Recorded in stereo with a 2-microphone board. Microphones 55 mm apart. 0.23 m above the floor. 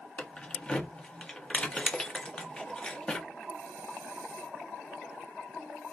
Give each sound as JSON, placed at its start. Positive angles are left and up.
{"t": 0.2, "sound": "keys jangling", "side_deg": 20, "distance_m": 0.6}